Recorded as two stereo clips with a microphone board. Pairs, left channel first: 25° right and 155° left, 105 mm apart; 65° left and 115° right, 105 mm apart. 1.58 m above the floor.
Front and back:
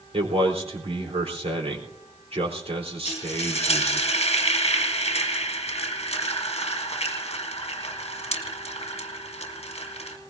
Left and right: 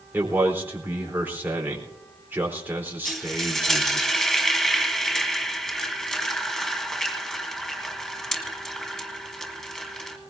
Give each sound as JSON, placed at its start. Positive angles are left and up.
{"t": 0.1, "sound": "a man speaking", "azimuth_deg": 175, "distance_m": 4.0}
{"t": 3.0, "sound": "frying", "azimuth_deg": -15, "distance_m": 1.6}